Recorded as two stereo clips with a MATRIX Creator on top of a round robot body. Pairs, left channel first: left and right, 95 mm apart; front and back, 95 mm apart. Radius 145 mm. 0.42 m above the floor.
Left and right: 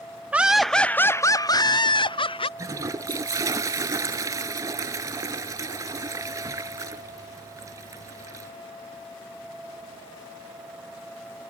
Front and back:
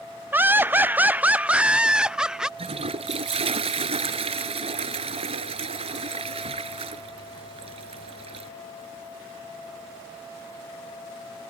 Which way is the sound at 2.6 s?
150° right.